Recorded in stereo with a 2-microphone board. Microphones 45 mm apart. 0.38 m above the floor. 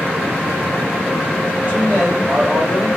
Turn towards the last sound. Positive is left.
turn(degrees=-35)  # may be behind; listen again after turning